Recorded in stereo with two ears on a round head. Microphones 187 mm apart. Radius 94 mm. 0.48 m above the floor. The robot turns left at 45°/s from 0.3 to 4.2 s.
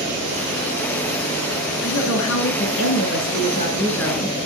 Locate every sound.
1.8 s a woman speaking: 105° left, 5.5 m; by 4.4 s straight ahead, 5.5 m